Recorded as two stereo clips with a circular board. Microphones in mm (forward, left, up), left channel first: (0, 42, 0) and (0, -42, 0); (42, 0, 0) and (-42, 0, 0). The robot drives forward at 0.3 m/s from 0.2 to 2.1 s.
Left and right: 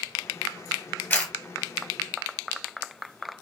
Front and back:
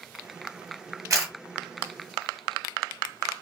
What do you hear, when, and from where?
1.1 s a camera shutter: 150° left, 1.1 m